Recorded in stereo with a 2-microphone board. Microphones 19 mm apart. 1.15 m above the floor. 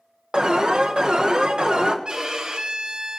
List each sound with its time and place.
0.3 s an alarm: 50° right (ahead or behind), 1.3 m
2.0 s a violin: 40° right (ahead or behind), 1.8 m